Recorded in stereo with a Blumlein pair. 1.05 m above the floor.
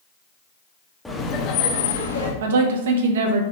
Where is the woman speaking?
60° right, 0.6 m.